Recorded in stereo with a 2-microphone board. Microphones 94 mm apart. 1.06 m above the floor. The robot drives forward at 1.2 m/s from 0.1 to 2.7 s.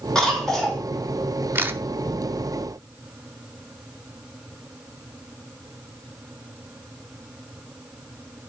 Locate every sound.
0.1 s a cough: 5° left (ahead or behind), 2.5 m
1.6 s a camera shutter: 20° right (ahead or behind), 0.7 m; by 1.8 s 25° right (ahead or behind), 0.6 m